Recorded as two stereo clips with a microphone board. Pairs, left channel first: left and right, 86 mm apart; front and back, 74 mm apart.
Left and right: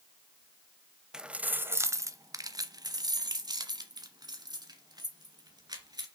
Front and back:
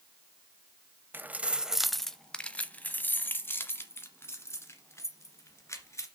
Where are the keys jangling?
165° right, 0.6 m; by 6.0 s 50° right, 2.5 m.